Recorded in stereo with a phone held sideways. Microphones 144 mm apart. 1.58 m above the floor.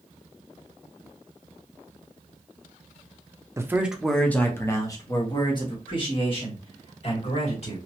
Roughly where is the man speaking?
Centre.